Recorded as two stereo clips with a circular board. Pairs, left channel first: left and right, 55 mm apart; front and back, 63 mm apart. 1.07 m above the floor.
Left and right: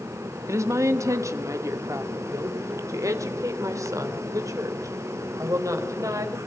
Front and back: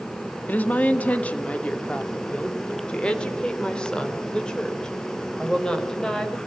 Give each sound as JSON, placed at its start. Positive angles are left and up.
{"t": 0.5, "sound": "a woman speaking", "azimuth_deg": -65, "distance_m": 1.7}